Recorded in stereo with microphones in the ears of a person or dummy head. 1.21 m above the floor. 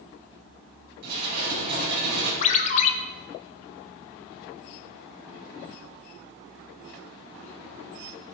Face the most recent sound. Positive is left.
turn(degrees=40)  # may be behind; listen again after turning